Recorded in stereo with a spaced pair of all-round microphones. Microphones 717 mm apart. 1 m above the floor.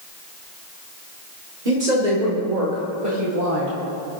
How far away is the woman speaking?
About 2.5 m.